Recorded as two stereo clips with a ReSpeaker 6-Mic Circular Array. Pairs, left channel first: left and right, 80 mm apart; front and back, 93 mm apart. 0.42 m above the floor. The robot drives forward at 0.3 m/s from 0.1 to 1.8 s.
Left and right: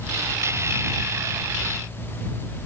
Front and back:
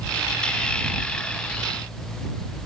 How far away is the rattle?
No rattle in this recording.